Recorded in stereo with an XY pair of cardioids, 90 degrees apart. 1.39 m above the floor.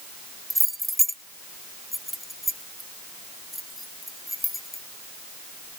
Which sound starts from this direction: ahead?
Keys jangling, at 0.5 s.